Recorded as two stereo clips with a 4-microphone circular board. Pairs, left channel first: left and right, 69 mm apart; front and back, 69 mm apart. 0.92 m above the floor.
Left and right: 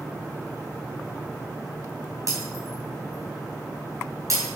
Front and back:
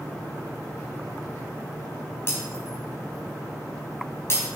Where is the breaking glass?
50° right, 4.5 m.